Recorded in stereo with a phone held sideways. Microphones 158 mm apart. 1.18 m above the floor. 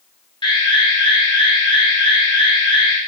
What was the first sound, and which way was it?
An alarm, 30° left (ahead or behind).